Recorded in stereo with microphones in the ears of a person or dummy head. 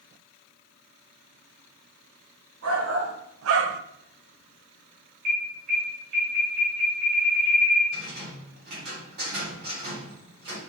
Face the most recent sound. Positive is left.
turn(degrees=-60)  # may be behind; listen again after turning